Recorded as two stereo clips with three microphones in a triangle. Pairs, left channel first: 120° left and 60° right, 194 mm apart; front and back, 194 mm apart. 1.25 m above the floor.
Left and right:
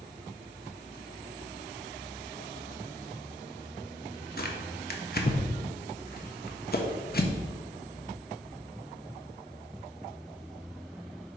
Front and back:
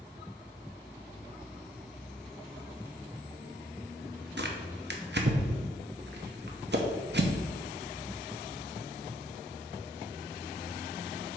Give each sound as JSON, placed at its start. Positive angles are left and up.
{"t": 4.4, "sound": "tearing paper", "azimuth_deg": 155, "distance_m": 0.8}